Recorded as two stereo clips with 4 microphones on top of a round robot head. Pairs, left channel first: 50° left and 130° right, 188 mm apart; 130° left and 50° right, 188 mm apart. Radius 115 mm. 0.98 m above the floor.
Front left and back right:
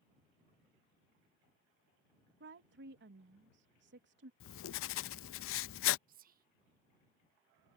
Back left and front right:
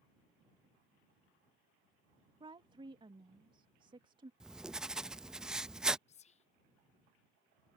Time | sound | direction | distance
2.4 | a woman speaking | 115° right | ?
4.4 | writing | 40° left | ?
6.1 | whispering | 175° right | ?